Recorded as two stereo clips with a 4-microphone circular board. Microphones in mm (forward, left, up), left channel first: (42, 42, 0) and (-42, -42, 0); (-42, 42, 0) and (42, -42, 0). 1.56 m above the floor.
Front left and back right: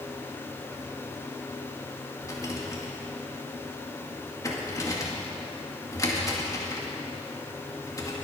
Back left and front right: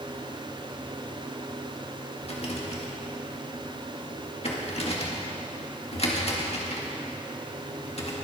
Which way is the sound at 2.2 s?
105° left.